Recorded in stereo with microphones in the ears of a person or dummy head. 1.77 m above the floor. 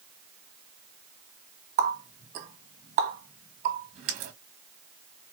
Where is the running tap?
45° right (ahead or behind), 1.5 m.